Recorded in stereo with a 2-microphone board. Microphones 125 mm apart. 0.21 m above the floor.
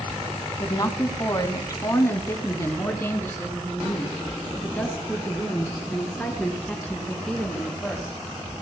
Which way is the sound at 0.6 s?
35° left (ahead or behind).